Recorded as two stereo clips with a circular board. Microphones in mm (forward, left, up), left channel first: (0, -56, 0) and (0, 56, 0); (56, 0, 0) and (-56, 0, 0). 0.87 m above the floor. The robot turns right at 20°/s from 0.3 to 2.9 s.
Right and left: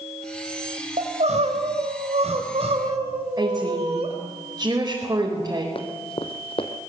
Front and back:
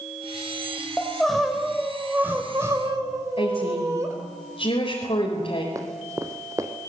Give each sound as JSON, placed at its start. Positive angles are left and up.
{"t": 1.0, "sound": "crying", "azimuth_deg": 80, "distance_m": 4.0}
{"t": 3.4, "sound": "a woman speaking", "azimuth_deg": 30, "distance_m": 4.5}
{"t": 5.8, "sound": "running footsteps", "azimuth_deg": -120, "distance_m": 2.0}